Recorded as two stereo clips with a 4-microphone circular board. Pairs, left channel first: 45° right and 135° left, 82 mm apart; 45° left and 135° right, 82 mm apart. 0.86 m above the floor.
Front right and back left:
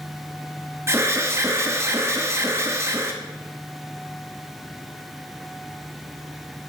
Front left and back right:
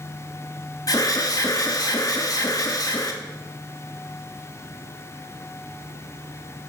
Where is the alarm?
80° left, 1.2 m.